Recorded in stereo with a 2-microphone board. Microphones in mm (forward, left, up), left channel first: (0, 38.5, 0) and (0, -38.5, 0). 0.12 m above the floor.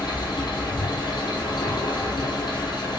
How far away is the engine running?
About 1.1 m.